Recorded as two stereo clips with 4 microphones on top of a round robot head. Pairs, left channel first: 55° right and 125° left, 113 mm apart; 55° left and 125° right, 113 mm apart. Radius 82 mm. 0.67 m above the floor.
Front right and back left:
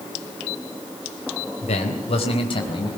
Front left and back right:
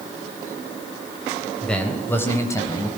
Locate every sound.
1.6 s a man speaking: 30° right, 3.5 m; by 2.9 s 5° right, 4.5 m